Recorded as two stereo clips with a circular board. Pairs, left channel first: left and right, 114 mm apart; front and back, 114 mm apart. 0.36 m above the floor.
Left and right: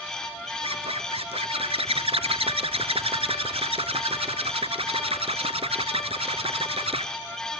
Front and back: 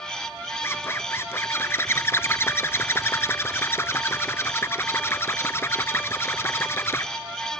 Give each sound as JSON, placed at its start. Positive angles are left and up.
{"t": 0.6, "sound": "a zipper", "azimuth_deg": -65, "distance_m": 0.8}